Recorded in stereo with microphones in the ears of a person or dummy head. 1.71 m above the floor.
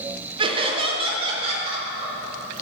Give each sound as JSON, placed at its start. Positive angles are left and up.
{"t": 0.4, "sound": "laughter", "side_deg": -30, "distance_m": 1.6}